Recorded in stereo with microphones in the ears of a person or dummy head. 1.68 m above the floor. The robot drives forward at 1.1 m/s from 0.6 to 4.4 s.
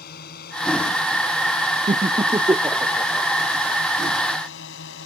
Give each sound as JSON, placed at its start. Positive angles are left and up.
{"t": 0.0, "sound": "a drone", "side_deg": 55}
{"t": 1.9, "sound": "laughter", "side_deg": -20}